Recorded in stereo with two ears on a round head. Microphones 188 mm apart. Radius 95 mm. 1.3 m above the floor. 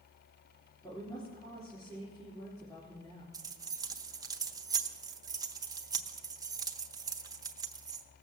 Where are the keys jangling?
15° right (ahead or behind), 0.8 m.